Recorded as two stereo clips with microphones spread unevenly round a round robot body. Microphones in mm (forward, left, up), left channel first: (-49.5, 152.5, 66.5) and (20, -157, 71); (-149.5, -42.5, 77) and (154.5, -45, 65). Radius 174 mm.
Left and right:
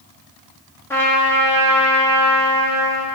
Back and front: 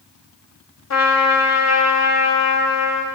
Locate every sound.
0.9 s a trumpet: 175° right, 1.5 m